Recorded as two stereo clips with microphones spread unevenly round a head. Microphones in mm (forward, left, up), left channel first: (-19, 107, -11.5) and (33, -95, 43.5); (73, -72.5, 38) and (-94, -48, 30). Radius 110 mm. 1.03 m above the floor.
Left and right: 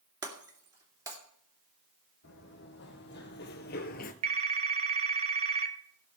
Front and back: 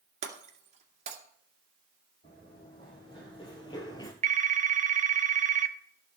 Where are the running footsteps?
60° left, 3 m; by 4.1 s 50° left, 1.3 m.